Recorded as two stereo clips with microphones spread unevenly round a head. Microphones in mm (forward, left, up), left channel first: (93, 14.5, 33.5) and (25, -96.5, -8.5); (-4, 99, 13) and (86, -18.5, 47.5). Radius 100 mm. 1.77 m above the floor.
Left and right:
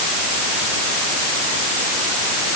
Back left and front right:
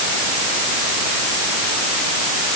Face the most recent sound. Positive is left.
No sound to turn to.